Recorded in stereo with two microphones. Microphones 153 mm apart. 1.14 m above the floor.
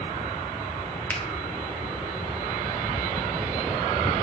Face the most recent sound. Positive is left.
turn(degrees=10)  # may be behind; listen again after turning